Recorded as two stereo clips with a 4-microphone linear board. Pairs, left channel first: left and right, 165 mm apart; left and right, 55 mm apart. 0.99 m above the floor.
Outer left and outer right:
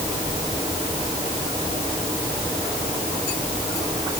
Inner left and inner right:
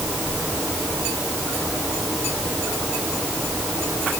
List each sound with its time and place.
Only background noise.